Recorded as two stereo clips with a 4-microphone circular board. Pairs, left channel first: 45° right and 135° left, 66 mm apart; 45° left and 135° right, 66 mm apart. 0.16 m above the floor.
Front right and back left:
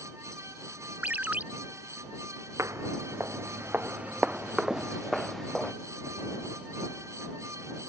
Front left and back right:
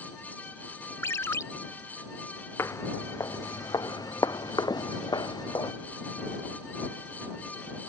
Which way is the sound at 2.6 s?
95° left.